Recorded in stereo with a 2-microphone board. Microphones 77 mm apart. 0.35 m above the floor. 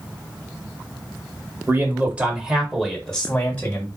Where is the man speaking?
25° right (ahead or behind), 1.6 m; by 3.9 s 30° left (ahead or behind), 1.7 m.